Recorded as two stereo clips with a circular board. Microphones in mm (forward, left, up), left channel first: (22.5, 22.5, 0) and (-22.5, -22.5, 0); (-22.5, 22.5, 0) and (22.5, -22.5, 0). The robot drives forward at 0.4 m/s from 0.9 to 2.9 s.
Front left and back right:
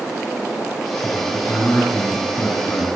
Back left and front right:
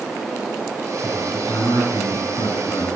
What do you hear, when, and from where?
1.0 s a man speaking: 105° left, 5.5 m; by 3.0 s 115° left, 5.5 m